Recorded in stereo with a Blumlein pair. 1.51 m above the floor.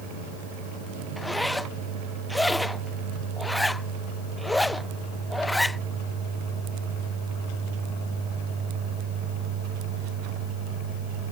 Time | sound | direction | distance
1.2 | a zipper | 5° left | ?